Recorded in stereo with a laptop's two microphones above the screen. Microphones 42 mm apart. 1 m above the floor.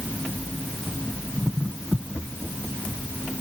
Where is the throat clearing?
No throat clearing in this recording.